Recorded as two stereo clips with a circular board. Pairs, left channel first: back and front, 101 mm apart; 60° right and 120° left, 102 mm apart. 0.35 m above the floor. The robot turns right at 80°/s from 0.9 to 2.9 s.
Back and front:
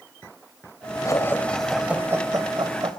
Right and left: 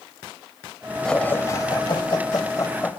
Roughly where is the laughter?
Behind right.